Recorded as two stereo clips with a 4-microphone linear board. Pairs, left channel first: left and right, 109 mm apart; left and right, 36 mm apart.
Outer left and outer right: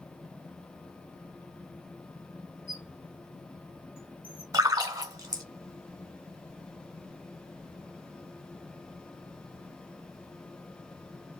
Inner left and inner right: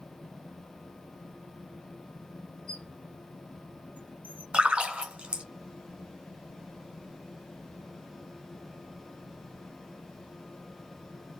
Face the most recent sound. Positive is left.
turn(degrees=-35)  # may be behind; listen again after turning